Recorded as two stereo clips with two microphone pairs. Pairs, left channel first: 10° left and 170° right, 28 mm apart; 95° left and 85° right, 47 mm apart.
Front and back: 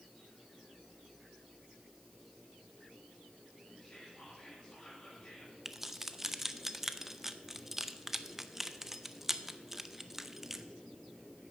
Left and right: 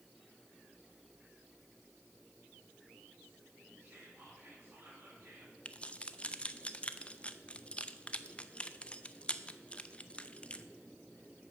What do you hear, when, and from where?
3.8 s whispering: 40° right, 5 m
5.7 s keys jangling: 125° left, 0.6 m